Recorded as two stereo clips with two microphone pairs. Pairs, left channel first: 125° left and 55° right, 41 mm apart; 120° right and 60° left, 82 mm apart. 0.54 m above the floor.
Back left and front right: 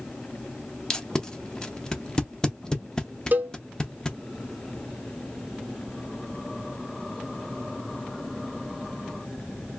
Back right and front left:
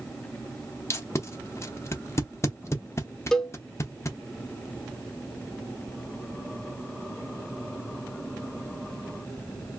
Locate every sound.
0.9 s tape being pulled: 165° right, 0.5 m
3.3 s a cowbell: 35° right, 0.5 m